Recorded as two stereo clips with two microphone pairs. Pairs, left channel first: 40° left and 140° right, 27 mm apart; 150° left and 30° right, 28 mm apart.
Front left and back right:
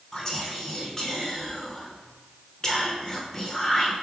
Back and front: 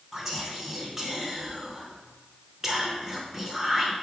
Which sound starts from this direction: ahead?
Whispering, at 0.1 s.